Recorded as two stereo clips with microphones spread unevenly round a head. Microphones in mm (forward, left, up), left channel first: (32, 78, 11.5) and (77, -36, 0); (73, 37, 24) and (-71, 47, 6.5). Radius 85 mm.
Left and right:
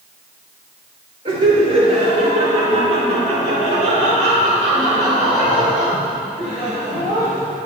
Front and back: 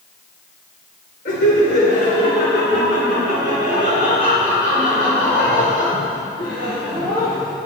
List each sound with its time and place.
1.2 s laughter: 30° right, 2.5 m; by 7.5 s 65° right, 6 m